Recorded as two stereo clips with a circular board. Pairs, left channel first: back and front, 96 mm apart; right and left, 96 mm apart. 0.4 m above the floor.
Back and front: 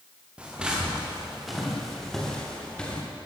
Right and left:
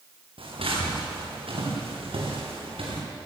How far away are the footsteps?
About 8 m.